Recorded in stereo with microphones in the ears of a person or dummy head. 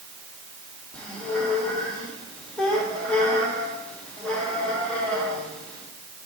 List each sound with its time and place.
0.9 s a squeak: 10° left (ahead or behind), 1.4 m